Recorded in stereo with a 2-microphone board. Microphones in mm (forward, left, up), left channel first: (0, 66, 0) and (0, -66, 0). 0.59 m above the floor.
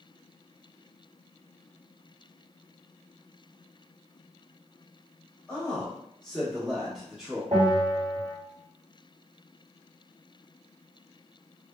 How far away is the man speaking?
About 1.2 m.